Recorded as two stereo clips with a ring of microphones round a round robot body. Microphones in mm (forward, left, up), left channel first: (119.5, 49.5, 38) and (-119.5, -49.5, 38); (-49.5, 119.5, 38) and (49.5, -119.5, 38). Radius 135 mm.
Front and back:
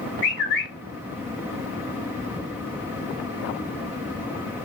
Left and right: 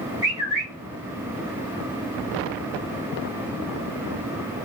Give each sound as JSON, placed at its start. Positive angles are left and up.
{"t": 0.2, "sound": "a bird", "azimuth_deg": 10, "distance_m": 1.5}